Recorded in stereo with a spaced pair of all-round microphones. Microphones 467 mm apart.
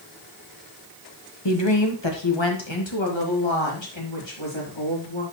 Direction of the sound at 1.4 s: 65° left (ahead or behind).